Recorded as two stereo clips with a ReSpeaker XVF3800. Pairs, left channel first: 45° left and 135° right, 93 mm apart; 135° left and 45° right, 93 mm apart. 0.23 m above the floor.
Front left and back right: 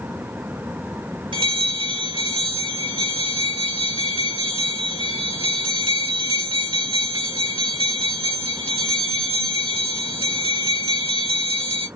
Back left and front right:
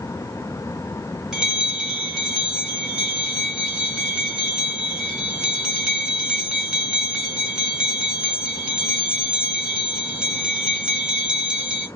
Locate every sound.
1.3 s a bell: 125° right, 1.0 m